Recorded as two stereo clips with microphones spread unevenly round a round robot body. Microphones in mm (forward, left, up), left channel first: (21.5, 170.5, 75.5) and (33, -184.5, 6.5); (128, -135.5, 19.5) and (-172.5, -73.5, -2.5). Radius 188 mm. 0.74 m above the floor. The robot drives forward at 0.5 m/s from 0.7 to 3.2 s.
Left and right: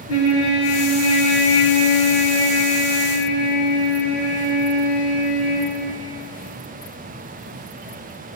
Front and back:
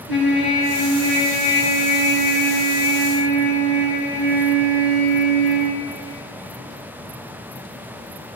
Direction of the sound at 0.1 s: 145° left.